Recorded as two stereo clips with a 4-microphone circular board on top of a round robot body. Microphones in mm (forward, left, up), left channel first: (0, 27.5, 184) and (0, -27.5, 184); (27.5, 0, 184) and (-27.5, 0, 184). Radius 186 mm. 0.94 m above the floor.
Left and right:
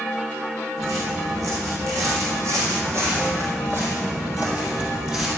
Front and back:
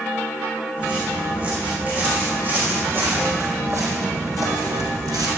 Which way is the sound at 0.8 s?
110° right.